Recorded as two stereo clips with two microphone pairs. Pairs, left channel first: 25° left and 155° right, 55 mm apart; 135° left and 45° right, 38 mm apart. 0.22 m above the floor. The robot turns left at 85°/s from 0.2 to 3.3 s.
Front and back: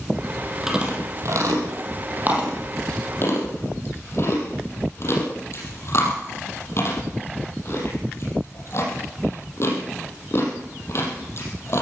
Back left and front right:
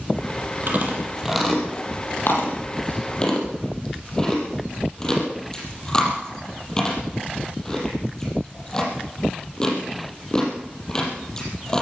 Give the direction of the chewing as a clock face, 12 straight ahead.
2 o'clock.